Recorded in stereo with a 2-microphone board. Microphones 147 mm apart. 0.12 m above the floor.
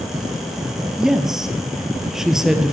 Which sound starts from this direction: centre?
A woman speaking, at 1.0 s.